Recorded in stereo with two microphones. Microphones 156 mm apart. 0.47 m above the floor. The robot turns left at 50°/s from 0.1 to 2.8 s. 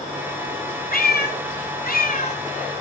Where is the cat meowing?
115° left, 1.3 m; by 2.4 s 40° left, 1.3 m.